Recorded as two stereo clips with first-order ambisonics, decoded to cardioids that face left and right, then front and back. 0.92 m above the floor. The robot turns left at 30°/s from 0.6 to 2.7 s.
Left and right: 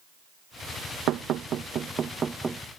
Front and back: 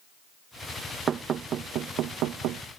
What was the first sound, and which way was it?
Knocking, 120° right.